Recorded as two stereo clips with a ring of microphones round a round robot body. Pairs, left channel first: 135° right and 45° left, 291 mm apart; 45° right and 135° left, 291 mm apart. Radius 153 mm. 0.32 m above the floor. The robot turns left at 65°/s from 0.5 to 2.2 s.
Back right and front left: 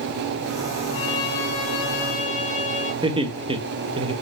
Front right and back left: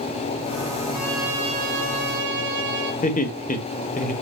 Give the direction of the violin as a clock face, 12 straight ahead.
4 o'clock.